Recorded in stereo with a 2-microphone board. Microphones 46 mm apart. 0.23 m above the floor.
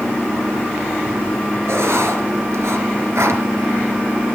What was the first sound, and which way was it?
Writing, 75° right (ahead or behind).